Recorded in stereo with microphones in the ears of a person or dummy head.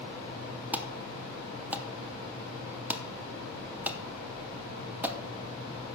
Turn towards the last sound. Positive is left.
turn(degrees=-10)  # may be behind; listen again after turning